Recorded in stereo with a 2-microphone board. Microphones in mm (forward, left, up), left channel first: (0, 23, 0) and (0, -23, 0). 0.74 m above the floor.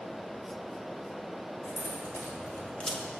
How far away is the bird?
I don't hear a bird.